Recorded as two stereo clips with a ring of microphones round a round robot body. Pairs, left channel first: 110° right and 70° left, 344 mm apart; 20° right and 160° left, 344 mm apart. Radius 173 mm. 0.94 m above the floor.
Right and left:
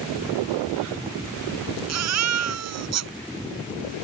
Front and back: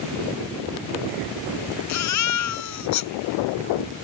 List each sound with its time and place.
1.9 s a baby crying: 20° left